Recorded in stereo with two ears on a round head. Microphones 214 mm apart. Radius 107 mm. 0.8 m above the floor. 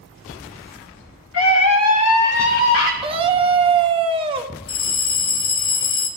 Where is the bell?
40° left (ahead or behind), 1.3 m.